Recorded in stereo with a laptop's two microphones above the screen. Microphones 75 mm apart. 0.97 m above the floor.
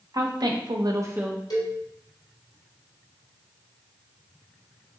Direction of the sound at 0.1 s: 60° right (ahead or behind).